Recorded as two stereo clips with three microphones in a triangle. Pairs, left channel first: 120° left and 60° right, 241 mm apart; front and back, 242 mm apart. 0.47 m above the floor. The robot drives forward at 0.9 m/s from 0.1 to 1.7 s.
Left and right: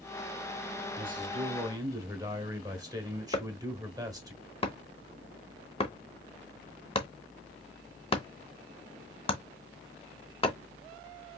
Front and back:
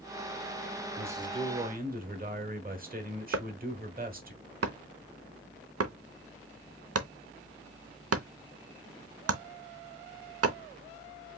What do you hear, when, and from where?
1.0 s a man speaking: 95° right, 1.1 m; by 4.3 s 130° right, 1.3 m
3.3 s chopping: 175° right, 0.7 m